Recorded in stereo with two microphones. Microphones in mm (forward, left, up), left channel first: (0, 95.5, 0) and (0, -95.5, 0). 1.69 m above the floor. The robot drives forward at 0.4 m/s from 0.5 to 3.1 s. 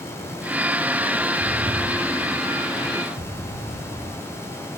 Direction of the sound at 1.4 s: 50° right (ahead or behind).